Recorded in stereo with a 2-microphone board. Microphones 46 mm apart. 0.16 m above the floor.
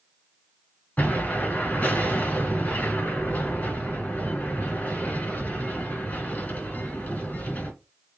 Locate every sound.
1.0 s an explosion: 35° left (ahead or behind), 2 m